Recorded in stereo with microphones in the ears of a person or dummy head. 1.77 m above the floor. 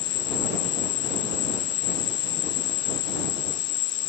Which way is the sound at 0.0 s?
25° left (ahead or behind).